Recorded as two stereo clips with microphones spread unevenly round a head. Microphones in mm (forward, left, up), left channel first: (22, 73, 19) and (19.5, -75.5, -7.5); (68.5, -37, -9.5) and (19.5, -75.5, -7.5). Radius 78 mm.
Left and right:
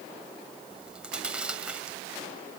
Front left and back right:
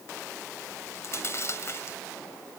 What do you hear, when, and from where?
0.7 s chewing: 5° right